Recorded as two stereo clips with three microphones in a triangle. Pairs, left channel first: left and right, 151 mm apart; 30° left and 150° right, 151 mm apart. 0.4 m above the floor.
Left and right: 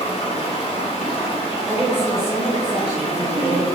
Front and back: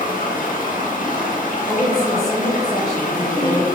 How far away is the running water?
About 0.7 m.